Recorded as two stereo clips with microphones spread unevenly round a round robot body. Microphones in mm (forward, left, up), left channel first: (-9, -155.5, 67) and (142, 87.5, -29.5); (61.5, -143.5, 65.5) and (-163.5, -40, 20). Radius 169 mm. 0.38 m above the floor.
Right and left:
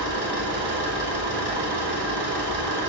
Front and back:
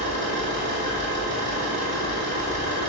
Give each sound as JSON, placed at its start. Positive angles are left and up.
{"t": 0.0, "sound": "an engine running", "azimuth_deg": 95, "distance_m": 2.0}